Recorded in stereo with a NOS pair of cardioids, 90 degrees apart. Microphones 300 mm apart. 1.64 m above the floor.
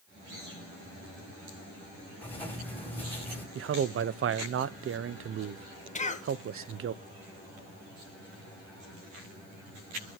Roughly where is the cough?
Ahead left.